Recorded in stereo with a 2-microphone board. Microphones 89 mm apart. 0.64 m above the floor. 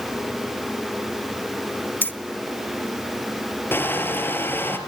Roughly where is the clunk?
No clunk in this recording.